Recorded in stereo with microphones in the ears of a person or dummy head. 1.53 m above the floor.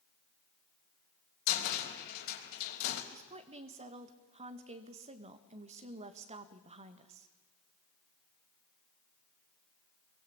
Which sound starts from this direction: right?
A woman speaking, at 3.1 s.